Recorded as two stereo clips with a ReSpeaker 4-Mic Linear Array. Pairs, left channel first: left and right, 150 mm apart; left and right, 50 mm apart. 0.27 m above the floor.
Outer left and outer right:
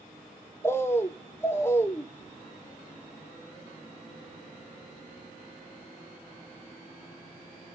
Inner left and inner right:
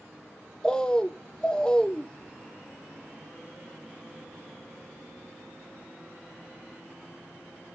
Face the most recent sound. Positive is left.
turn(degrees=15)  # may be behind; listen again after turning